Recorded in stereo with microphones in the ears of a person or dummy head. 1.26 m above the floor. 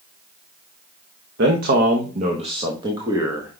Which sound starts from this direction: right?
A man speaking, at 1.4 s.